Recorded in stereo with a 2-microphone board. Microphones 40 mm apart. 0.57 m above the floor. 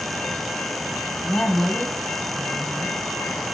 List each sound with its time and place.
1.2 s a woman speaking: 55° left (ahead or behind), 5 m